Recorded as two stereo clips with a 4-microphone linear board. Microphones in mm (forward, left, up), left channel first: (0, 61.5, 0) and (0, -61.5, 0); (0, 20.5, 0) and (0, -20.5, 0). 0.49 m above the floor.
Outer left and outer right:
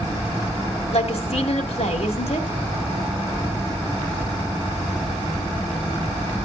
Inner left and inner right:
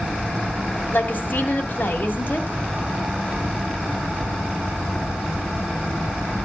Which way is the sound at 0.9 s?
55° left (ahead or behind).